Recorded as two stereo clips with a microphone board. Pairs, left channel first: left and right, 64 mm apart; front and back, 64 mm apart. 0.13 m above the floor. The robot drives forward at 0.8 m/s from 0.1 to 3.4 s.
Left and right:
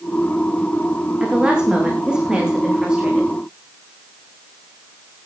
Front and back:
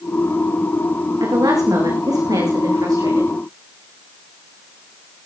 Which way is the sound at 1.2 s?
165° right.